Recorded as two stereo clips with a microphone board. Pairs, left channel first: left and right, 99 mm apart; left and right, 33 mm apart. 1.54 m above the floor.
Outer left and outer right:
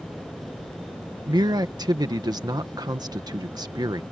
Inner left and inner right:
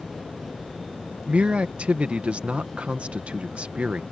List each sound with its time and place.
1.3 s a man speaking: 40° right (ahead or behind)